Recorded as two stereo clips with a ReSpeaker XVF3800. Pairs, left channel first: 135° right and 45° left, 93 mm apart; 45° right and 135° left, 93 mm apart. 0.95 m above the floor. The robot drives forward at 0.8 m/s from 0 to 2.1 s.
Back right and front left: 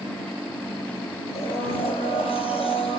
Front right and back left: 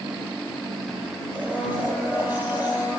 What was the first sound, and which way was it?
A blender, 150° right.